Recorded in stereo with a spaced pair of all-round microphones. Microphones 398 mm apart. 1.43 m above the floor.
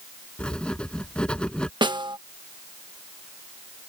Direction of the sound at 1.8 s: 10° right (ahead or behind).